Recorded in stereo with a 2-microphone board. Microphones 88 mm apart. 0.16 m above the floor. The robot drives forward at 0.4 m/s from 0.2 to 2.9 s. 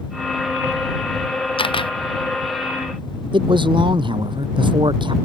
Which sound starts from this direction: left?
A camera shutter, at 1.6 s.